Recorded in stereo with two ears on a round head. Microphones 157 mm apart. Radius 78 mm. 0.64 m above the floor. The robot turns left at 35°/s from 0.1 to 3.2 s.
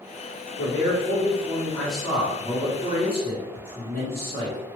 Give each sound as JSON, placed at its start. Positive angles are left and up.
{"t": 0.6, "sound": "a man speaking", "azimuth_deg": 50, "distance_m": 1.3}